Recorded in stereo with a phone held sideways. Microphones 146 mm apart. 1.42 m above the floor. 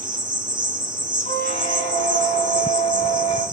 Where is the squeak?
70° left (ahead or behind), 2.5 m.